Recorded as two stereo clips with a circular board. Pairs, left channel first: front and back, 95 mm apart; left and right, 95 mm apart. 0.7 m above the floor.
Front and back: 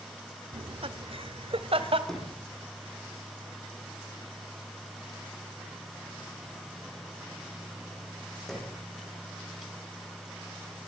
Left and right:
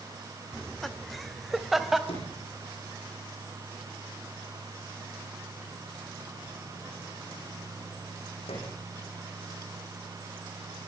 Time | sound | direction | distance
0.5 | laughter | 175° left | 1.2 m
2.1 | a sliding door | 85° left | 9.5 m